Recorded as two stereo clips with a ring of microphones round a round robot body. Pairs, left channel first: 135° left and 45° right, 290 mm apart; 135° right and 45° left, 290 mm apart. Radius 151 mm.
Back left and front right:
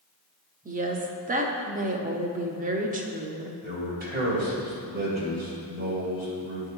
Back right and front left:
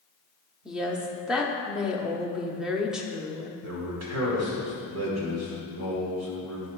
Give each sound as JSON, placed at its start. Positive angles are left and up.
{"t": 0.7, "sound": "a woman speaking", "azimuth_deg": -40, "distance_m": 0.9}
{"t": 3.6, "sound": "a man speaking", "azimuth_deg": 15, "distance_m": 2.5}